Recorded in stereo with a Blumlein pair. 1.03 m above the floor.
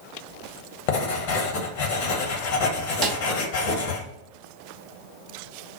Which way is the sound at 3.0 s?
30° right.